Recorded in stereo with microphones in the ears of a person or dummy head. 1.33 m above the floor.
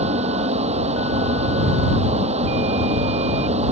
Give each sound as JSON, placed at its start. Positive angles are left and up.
{"t": 0.0, "sound": "a fan", "side_deg": -30}